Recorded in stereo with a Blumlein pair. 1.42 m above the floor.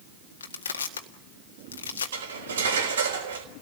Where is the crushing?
70° left, 1.7 m.